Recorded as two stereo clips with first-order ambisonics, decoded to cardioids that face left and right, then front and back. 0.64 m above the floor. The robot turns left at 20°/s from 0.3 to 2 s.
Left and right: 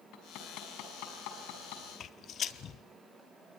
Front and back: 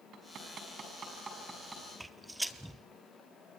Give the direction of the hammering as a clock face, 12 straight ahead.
8 o'clock.